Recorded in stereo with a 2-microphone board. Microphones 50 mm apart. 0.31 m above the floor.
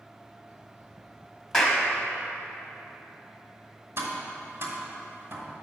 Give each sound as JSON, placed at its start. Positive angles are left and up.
{"t": 1.5, "sound": "a clap", "side_deg": 10, "distance_m": 1.3}
{"t": 4.0, "sound": "tapping", "side_deg": -60, "distance_m": 1.4}